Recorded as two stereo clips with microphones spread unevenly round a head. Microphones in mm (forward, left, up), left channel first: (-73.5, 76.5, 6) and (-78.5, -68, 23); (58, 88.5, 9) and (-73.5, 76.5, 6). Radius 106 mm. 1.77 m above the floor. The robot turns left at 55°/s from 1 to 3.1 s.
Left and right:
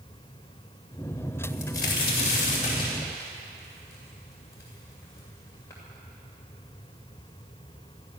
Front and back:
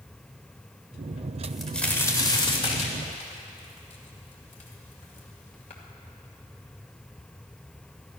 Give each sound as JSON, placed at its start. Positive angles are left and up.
{"t": 1.4, "sound": "a crack", "azimuth_deg": 100, "distance_m": 2.5}